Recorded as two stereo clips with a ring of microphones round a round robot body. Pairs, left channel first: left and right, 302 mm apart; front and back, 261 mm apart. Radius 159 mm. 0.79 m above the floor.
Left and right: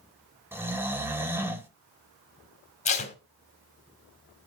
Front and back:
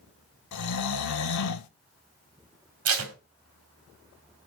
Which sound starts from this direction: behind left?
Tape being pulled, at 2.9 s.